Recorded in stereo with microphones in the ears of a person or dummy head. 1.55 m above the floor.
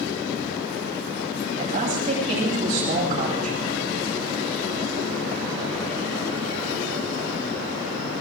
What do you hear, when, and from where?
1.6 s a man speaking: 40° right (ahead or behind), 8.5 m